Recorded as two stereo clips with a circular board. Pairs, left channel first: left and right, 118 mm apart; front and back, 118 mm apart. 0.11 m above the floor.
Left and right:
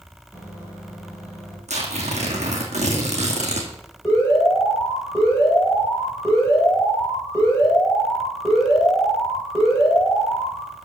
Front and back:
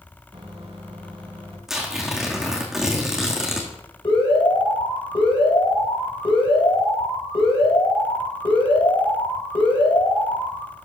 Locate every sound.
0.3 s a microwave: 150° left, 3.5 m
1.7 s tearing paper: 95° right, 2.0 m
4.0 s an alarm: 30° left, 5 m